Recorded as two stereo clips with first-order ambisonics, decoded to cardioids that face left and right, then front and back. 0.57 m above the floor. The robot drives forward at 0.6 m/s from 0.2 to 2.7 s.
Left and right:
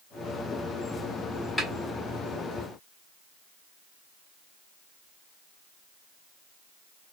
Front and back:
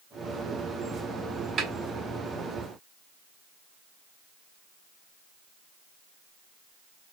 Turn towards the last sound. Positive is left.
turn(degrees=175)